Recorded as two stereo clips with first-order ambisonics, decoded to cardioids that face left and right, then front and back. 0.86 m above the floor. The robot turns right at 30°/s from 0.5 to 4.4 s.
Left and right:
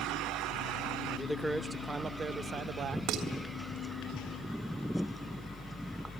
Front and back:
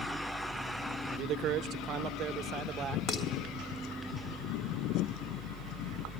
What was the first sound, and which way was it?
A man speaking, 175° left.